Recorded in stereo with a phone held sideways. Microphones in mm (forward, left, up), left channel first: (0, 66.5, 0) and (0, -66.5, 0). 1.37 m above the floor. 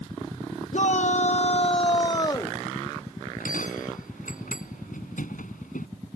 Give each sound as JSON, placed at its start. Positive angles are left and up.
{"t": 0.7, "sound": "a shout", "side_deg": 60}
{"t": 3.2, "sound": "a bell", "side_deg": 85}